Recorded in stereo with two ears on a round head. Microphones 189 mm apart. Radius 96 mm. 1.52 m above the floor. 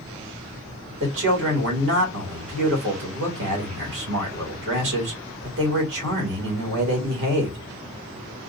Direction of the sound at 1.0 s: 70° right (ahead or behind).